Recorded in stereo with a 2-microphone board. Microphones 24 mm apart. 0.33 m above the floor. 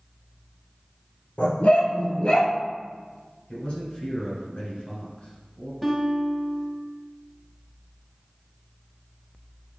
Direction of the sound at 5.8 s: Centre (ahead or behind).